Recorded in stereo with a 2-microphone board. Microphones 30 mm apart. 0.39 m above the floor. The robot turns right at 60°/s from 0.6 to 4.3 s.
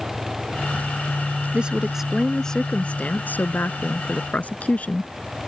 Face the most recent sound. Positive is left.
turn(degrees=130)